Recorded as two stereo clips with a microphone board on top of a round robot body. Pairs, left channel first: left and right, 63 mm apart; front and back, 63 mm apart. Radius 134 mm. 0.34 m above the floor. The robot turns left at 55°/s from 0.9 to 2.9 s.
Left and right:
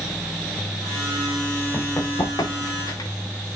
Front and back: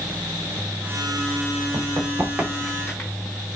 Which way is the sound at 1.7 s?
155° left.